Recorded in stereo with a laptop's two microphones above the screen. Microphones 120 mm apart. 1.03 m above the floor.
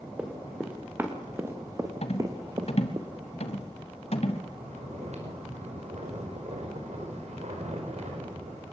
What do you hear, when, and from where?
0.2 s running footsteps: 10° right (ahead or behind), 5.5 m; by 3.0 s 40° right (ahead or behind), 4 m
2.0 s a rattle: 60° left (ahead or behind), 2.5 m
4.5 s snoring: 70° right (ahead or behind), 5 m